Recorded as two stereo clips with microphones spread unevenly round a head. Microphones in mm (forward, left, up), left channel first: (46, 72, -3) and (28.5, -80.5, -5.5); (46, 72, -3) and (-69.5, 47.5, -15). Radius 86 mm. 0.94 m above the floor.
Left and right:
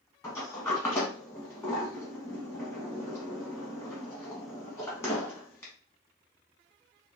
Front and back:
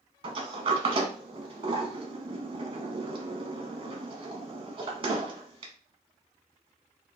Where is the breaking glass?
I don't hear breaking glass.